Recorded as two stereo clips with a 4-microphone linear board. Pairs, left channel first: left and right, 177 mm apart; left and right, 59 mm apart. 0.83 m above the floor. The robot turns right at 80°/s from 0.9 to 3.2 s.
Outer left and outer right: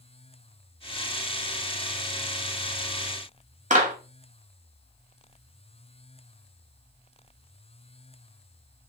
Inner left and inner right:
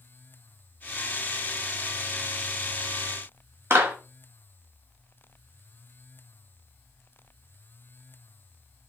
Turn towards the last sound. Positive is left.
turn(degrees=-45)  # may be behind; listen again after turning